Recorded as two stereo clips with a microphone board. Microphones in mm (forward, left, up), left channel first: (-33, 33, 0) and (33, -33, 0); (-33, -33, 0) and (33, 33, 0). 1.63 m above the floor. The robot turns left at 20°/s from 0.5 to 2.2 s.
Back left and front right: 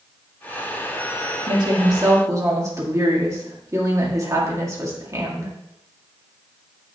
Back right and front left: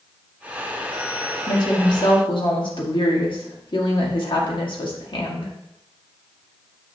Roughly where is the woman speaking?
Right.